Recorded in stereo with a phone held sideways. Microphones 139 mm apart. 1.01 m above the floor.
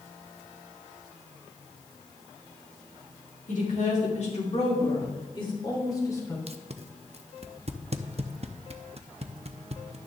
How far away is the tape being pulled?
About 0.6 m.